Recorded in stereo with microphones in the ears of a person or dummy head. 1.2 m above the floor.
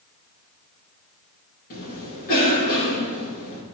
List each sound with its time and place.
1.7 s a cough: 50° left (ahead or behind), 2 m